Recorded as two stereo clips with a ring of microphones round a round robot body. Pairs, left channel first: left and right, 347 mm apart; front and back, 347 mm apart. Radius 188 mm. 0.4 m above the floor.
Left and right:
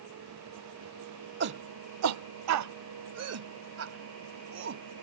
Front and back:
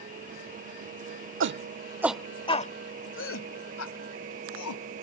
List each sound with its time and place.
1.4 s a shout: 140° right; by 5.0 s 35° right